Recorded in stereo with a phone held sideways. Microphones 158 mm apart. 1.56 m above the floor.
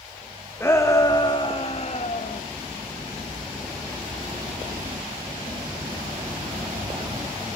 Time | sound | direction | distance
0.6 | a shout | 15° left (ahead or behind) | 2.5 m